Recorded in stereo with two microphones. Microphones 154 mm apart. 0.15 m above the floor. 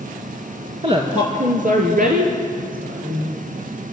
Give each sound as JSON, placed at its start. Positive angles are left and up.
{"t": 0.8, "sound": "a woman speaking", "side_deg": -35, "distance_m": 1.9}